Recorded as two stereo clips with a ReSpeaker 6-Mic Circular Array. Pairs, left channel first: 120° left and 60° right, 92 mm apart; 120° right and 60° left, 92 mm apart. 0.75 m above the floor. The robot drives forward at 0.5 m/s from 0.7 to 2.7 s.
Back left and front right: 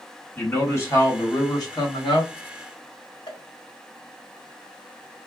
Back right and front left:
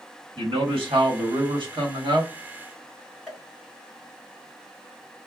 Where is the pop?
150° left, 1.2 m.